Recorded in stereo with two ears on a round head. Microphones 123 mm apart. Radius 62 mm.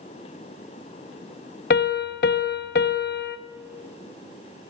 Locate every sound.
1.7 s a piano: 70° left (ahead or behind), 0.5 m